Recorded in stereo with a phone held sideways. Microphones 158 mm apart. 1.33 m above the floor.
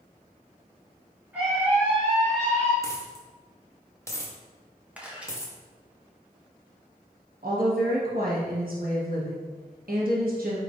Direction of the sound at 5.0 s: 10° right (ahead or behind).